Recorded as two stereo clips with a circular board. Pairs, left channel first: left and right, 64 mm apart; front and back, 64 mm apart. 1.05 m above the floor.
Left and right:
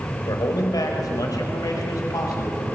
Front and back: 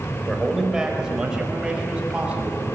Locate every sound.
0.3 s a man speaking: 95° left, 4 m; by 2.7 s 110° left, 6.5 m